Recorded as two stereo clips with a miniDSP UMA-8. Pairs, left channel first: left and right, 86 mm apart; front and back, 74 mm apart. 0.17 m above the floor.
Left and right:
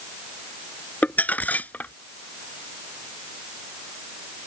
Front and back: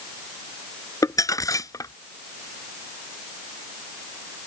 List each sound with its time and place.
1.0 s crumpling: 20° left